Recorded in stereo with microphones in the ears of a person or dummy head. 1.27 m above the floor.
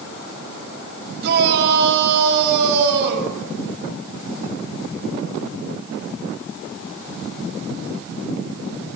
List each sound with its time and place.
1.2 s a shout: 60° right (ahead or behind), 7 m